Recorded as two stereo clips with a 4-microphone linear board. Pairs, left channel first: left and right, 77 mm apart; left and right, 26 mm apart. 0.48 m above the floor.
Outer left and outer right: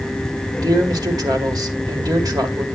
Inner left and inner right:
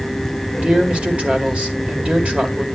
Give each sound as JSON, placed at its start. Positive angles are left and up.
{"t": 0.6, "sound": "a man speaking", "side_deg": -55, "distance_m": 1.9}